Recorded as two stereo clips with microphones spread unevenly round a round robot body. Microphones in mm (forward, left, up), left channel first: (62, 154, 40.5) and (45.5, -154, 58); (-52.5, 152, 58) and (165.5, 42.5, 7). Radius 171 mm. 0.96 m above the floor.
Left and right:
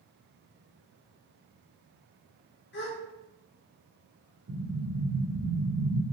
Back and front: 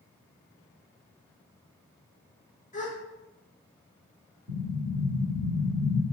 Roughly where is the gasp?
Left.